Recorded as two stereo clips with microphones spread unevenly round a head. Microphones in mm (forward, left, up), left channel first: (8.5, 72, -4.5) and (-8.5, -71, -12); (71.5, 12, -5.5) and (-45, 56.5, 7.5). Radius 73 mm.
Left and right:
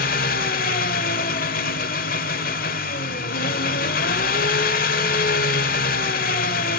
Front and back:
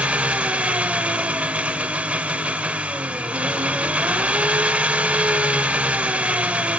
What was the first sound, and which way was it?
An engine running, 85° left.